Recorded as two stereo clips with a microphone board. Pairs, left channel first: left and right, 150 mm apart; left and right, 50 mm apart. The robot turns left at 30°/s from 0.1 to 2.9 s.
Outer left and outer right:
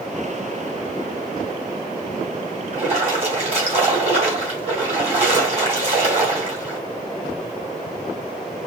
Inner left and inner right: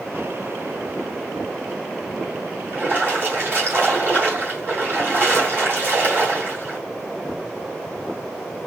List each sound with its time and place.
2.7 s a splash: 50° right (ahead or behind), 2 m; by 6.8 s 45° right (ahead or behind), 2 m